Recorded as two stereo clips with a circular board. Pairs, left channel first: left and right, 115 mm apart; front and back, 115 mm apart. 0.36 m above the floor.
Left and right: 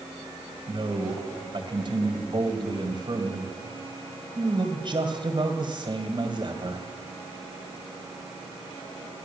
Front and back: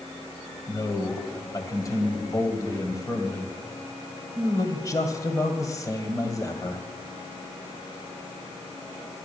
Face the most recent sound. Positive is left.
turn(degrees=-55)